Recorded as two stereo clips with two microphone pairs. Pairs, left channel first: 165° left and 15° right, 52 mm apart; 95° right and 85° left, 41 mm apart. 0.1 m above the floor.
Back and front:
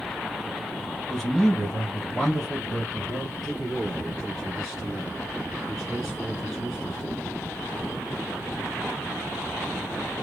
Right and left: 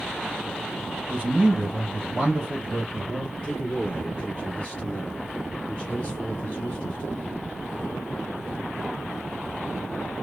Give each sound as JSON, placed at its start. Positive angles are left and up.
{"t": 1.1, "sound": "a man speaking", "azimuth_deg": 100, "distance_m": 1.6}
{"t": 3.4, "sound": "a man speaking", "azimuth_deg": -110, "distance_m": 2.0}